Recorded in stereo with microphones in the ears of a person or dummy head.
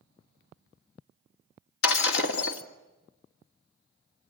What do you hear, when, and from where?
1.8 s breaking glass: 70° left (ahead or behind), 2.5 m